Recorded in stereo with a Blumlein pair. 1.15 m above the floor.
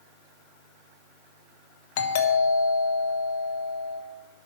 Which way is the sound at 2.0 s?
50° left.